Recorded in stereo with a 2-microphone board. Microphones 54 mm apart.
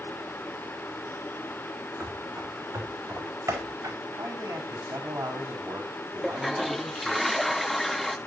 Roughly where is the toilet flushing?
Centre.